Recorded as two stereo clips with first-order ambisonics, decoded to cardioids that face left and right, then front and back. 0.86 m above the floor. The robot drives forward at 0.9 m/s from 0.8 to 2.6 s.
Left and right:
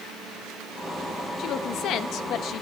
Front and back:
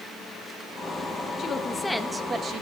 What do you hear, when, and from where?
1.4 s a woman speaking: 55° left, 1.2 m; by 2.6 s 130° left, 1.2 m